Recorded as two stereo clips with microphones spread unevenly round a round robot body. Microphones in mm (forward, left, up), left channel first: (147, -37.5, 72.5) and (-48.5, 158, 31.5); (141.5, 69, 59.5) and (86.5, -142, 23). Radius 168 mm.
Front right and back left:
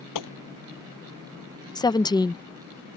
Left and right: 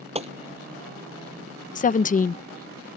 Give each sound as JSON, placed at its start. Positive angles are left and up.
{"t": 0.1, "sound": "a gunshot", "azimuth_deg": -40}
{"t": 1.8, "sound": "a woman speaking", "azimuth_deg": 35}